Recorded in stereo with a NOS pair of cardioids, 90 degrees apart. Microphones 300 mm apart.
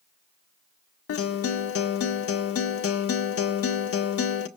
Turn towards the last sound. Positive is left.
turn(degrees=50)